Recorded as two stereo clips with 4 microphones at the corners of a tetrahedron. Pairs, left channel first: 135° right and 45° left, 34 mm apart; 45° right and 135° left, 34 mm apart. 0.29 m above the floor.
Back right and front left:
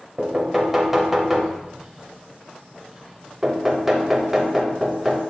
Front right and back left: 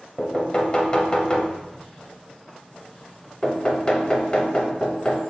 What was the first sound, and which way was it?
Knocking, 30° right.